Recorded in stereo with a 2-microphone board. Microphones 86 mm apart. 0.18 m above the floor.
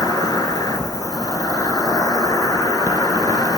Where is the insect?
50° left (ahead or behind), 1.2 m.